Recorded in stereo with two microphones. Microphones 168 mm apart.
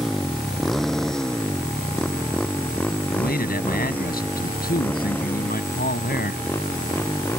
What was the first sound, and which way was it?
A motorcycle, centre (ahead or behind).